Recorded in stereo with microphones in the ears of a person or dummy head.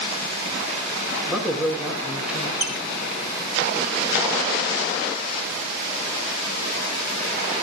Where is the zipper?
No zipper in this recording.